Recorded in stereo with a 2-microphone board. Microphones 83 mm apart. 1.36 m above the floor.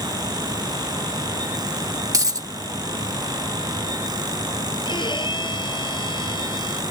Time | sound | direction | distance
2.1 | a dropped coin | 45° right (ahead or behind) | ?
4.8 | a violin | 70° left (ahead or behind) | ?